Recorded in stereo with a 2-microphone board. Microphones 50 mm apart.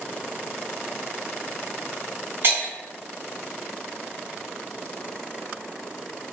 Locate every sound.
2.4 s breaking glass: 50° right (ahead or behind), 1.4 m